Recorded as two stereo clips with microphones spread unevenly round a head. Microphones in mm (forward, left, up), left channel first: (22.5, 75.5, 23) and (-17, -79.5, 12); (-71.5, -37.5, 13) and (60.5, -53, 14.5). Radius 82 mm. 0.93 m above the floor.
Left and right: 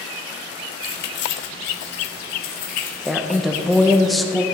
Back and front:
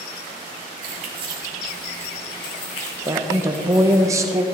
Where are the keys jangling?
35° left, 1.5 m; by 4.0 s 130° left, 3.5 m.